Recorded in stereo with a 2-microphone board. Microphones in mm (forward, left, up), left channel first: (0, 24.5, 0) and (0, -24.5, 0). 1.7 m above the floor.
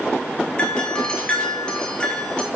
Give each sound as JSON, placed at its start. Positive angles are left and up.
{"t": 0.6, "sound": "a doorbell", "side_deg": 20, "distance_m": 1.7}